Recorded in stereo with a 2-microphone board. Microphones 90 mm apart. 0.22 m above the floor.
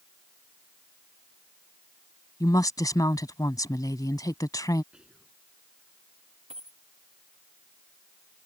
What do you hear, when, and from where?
2.4 s a woman speaking: 40° left (ahead or behind)
4.9 s whispering: 10° right (ahead or behind)
6.5 s a dropped coin: 80° right